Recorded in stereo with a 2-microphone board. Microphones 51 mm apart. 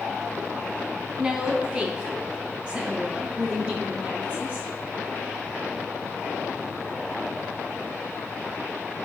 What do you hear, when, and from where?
1.2 s a woman speaking: 20° right (ahead or behind), 2.5 m; by 4.7 s 25° right (ahead or behind), 4.5 m